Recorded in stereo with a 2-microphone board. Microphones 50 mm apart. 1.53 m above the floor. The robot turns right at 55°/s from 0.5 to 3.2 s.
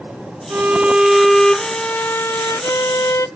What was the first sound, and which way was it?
A violin, 40° right.